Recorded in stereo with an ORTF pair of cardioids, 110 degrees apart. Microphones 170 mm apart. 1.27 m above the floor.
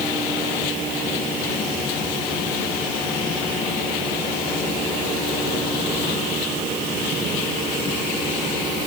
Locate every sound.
Only background noise.